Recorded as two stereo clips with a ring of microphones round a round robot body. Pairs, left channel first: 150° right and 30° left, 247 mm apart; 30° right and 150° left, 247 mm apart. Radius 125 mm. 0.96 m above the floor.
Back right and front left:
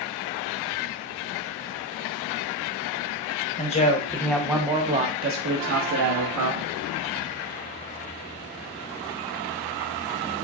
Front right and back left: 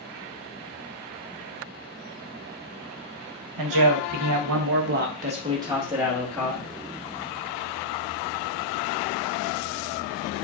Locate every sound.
3.6 s a man speaking: 145° left, 1.0 m; by 6.7 s 55° left, 1.3 m